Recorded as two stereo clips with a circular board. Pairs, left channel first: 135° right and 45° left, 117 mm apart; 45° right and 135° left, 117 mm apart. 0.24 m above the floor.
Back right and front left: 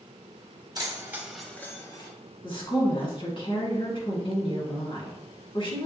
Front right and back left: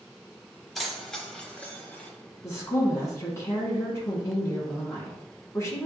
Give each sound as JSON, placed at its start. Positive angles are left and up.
{"t": 0.8, "sound": "keys jangling", "azimuth_deg": 45, "distance_m": 0.9}
{"t": 2.4, "sound": "a woman speaking", "azimuth_deg": -105, "distance_m": 1.8}